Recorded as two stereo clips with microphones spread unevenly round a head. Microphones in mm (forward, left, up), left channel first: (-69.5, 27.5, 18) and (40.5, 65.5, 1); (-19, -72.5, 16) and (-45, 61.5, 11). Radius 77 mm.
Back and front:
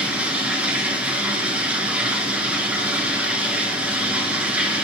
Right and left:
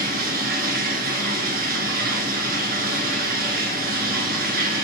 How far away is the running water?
About 3 m.